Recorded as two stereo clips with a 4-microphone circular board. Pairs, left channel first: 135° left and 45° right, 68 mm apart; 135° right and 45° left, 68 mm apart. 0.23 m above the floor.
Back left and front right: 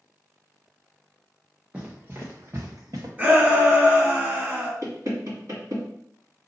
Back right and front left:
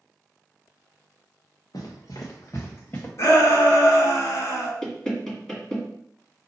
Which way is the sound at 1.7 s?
120° right.